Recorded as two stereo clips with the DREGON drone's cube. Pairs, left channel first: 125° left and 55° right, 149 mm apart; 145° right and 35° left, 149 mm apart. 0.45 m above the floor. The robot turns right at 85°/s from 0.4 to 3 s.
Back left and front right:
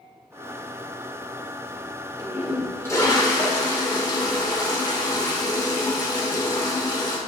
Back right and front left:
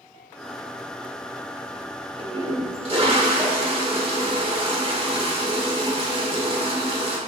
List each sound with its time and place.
2.2 s a toilet flushing: straight ahead, 1.6 m; by 7.2 s 70° left, 1.6 m